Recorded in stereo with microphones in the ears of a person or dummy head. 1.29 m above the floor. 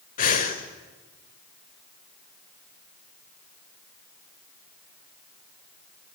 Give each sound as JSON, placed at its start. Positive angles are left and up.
{"t": 0.2, "sound": "breathing", "side_deg": 45, "distance_m": 1.6}